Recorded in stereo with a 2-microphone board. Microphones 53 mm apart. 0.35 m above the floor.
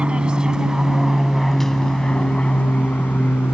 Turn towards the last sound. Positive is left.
turn(degrees=35)  # may be behind; listen again after turning